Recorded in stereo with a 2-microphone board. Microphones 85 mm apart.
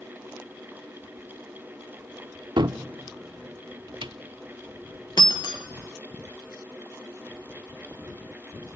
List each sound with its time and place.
2.6 s a cupboard door: 70° right (ahead or behind), 0.5 m
5.2 s breaking glass: 60° left (ahead or behind), 1.0 m